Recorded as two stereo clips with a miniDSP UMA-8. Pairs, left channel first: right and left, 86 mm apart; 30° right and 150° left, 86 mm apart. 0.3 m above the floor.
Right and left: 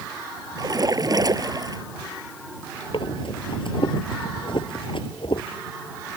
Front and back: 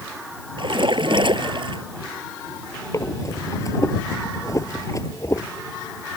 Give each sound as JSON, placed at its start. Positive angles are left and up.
{"t": 0.6, "sound": "a splash", "azimuth_deg": 130}
{"t": 2.9, "sound": "breathing", "azimuth_deg": -80}